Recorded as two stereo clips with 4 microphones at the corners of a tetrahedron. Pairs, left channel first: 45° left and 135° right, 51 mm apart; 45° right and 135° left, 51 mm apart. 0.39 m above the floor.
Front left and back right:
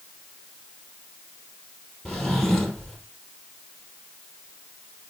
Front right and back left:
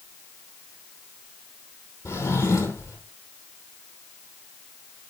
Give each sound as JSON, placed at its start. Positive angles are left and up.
{"t": 2.0, "sound": "a drawer", "azimuth_deg": -40, "distance_m": 3.0}